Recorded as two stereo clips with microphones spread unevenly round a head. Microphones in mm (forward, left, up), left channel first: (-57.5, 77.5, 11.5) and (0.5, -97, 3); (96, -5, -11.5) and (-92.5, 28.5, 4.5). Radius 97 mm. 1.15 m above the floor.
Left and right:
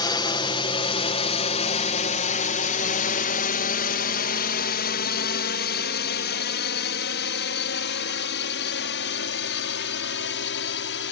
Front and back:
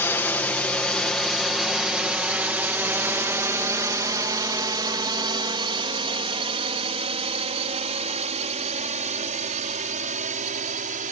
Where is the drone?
60° left; by 11.1 s 120° left.